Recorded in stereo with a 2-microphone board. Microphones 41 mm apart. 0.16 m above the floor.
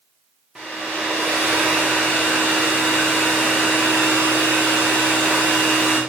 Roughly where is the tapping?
I don't hear tapping.